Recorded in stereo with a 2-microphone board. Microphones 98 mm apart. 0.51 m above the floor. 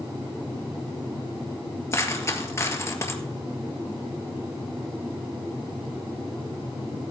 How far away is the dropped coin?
About 1.6 m.